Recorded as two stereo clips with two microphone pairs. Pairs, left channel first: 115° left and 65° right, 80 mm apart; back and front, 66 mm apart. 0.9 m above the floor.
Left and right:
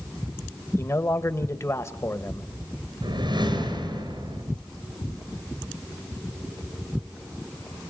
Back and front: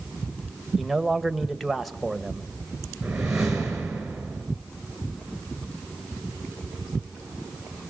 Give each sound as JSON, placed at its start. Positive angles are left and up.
{"t": 0.8, "sound": "a man speaking", "azimuth_deg": 90, "distance_m": 1.1}
{"t": 3.0, "sound": "a whoosh", "azimuth_deg": -80, "distance_m": 4.5}